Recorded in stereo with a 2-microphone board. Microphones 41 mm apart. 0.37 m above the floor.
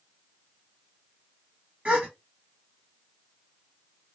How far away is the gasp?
About 1.2 m.